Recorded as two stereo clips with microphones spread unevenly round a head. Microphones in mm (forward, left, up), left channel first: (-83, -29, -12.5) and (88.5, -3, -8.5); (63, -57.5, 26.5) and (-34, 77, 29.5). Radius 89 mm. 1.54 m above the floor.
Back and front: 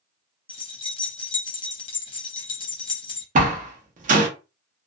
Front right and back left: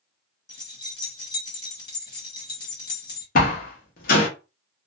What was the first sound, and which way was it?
Keys jangling, 115° right.